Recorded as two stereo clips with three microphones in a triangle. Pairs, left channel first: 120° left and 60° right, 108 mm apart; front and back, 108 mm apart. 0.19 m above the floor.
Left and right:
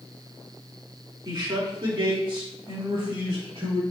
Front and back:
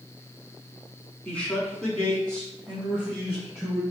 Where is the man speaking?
75° right, 1.5 m; by 3.8 s 85° right, 3 m.